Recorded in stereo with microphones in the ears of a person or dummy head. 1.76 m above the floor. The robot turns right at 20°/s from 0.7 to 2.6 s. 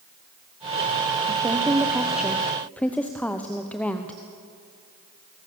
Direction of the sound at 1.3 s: 20° right (ahead or behind).